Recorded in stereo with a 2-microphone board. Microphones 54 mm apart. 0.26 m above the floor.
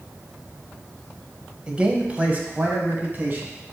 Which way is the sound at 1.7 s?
15° right (ahead or behind).